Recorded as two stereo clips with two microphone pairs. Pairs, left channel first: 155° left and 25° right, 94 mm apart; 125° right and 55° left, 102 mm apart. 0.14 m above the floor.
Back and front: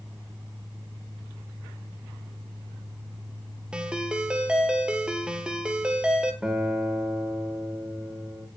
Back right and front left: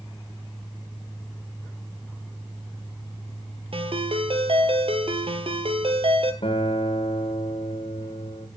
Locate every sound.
3.7 s a ringtone: 50° left, 2.0 m
6.4 s a guitar: 110° right, 4 m